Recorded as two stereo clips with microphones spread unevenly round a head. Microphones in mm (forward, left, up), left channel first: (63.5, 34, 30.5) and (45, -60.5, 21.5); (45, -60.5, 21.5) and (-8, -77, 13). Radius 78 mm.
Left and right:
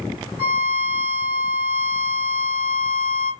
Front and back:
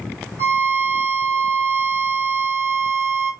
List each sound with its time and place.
0.4 s a violin: 125° right, 2 m